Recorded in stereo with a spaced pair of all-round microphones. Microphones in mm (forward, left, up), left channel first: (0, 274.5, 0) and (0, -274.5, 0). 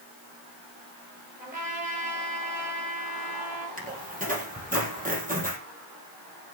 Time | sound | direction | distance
1.4 | a trumpet | 15° right (ahead or behind) | 9.5 m
3.8 | a squeak | 15° right (ahead or behind) | 3.5 m